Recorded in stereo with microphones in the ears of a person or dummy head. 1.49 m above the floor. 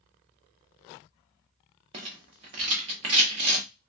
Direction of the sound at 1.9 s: 20° right (ahead or behind).